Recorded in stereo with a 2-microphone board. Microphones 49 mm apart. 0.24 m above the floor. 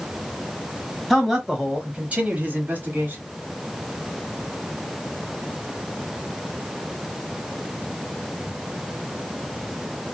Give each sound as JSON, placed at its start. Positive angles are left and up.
{"t": 1.1, "sound": "a man speaking", "side_deg": 0, "distance_m": 1.1}